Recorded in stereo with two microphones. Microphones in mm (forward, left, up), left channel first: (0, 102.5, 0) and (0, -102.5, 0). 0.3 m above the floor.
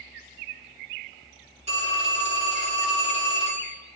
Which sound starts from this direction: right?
A phone ringing, at 1.7 s.